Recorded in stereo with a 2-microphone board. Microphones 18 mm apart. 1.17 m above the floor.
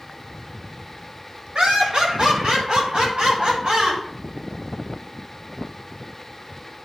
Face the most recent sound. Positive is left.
turn(degrees=-75)  # may be behind; listen again after turning